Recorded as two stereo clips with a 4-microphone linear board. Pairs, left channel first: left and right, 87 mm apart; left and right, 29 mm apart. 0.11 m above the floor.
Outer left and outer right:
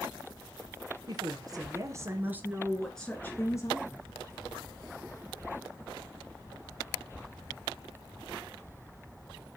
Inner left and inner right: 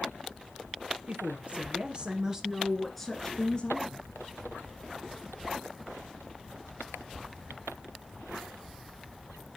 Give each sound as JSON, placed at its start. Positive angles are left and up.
{"t": 1.1, "sound": "a woman speaking", "side_deg": -50, "distance_m": 2.5}